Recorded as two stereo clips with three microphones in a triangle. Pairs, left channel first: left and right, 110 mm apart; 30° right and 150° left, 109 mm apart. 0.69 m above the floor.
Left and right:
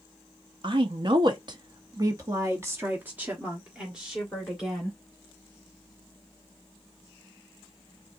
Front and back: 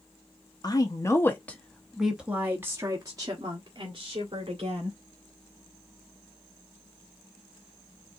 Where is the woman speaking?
70° right, 1.1 m; by 5.0 s straight behind, 2 m.